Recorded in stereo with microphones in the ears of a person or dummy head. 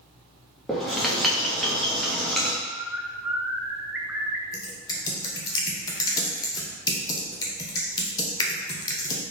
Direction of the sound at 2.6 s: 10° right (ahead or behind).